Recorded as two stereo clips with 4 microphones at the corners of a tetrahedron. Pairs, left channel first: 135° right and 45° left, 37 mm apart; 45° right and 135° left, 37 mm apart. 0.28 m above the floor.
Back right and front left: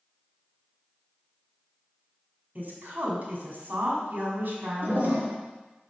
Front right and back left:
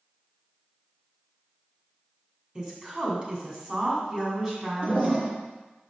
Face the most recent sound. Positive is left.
turn(degrees=85)